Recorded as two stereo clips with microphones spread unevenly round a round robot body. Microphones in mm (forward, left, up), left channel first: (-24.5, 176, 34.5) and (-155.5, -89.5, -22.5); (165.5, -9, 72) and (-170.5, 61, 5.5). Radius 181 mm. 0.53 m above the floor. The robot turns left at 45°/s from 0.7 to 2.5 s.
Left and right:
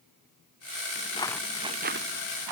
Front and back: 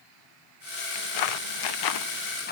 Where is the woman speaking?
No woman speaking in this recording.